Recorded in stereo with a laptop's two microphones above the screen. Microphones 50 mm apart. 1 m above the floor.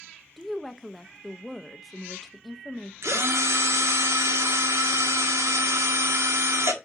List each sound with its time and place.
0.4 s a woman speaking: 5° left (ahead or behind), 0.6 m
3.0 s a drill: 80° right, 1.6 m